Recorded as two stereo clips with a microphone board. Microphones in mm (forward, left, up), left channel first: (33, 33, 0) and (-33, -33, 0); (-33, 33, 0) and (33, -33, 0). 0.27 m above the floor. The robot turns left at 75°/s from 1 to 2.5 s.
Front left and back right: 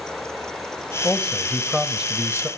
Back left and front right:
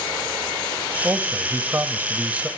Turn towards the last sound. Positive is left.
turn(degrees=-115)